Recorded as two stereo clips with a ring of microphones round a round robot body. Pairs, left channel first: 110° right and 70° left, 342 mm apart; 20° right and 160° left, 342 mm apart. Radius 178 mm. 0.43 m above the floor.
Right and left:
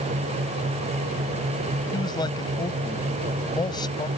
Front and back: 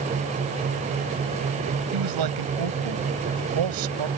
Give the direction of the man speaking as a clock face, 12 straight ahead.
6 o'clock.